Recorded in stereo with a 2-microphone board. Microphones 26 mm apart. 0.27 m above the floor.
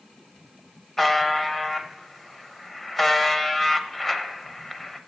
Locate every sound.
1.0 s a buzzer: 10° left (ahead or behind), 0.6 m